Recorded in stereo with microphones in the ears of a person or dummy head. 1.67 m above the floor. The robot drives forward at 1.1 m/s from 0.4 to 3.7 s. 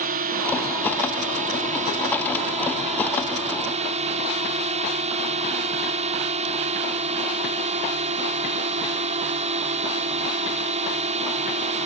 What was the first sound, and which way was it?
A drone, 45° right (ahead or behind).